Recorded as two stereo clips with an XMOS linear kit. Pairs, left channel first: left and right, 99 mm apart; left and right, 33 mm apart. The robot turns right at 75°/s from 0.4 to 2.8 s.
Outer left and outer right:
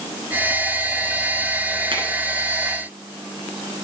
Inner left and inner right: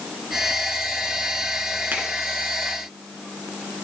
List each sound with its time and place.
1.9 s a finger snap: 60° right (ahead or behind), 2.5 m; by 2.0 s 65° right (ahead or behind), 2.5 m